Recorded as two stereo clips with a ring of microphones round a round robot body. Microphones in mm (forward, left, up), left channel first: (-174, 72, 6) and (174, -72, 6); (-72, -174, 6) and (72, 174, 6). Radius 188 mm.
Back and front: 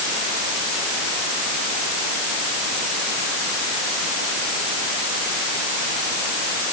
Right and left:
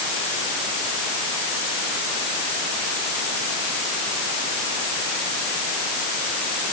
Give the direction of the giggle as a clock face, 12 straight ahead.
I don't hear a giggle.